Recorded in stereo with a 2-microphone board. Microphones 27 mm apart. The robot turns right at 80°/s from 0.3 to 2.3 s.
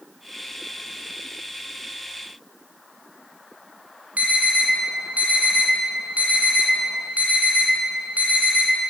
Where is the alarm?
65° right (ahead or behind), 1.5 m.